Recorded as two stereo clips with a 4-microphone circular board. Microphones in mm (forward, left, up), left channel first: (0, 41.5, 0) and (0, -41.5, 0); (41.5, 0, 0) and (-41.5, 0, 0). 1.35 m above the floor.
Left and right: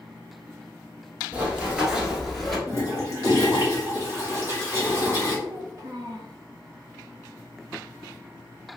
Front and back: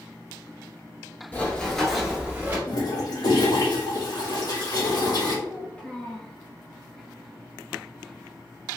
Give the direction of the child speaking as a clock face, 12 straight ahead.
2 o'clock.